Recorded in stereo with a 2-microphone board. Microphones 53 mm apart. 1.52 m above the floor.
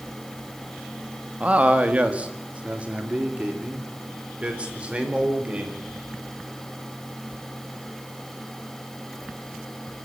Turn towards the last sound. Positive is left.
turn(degrees=-25)  # may be behind; listen again after turning